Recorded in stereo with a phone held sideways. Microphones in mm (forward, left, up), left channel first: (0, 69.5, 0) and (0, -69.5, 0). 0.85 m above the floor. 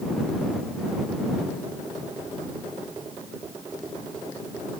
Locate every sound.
Only background noise.